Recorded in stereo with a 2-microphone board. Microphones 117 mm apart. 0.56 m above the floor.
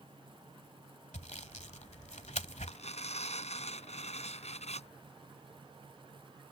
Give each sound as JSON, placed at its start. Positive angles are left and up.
{"t": 1.1, "sound": "sawing", "side_deg": 85}
{"t": 2.7, "sound": "tearing paper", "side_deg": 70}